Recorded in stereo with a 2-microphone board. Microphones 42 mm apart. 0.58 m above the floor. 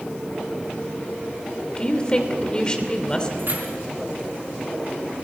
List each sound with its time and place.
1.8 s a woman speaking: 25° left (ahead or behind), 2.5 m
3.4 s keys jangling: 55° right (ahead or behind), 4.5 m